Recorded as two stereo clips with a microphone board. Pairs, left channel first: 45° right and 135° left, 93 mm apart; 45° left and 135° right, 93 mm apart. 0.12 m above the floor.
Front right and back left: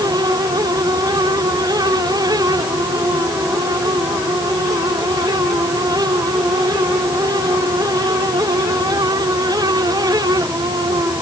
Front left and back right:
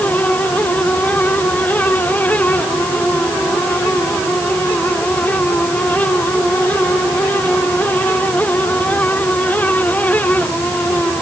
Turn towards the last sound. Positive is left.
No sound to turn to.